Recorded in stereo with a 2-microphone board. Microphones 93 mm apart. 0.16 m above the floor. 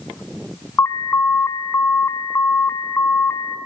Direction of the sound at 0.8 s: 30° left (ahead or behind).